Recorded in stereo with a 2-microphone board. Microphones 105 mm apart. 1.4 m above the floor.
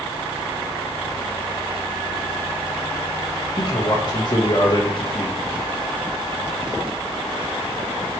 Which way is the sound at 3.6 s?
45° left (ahead or behind).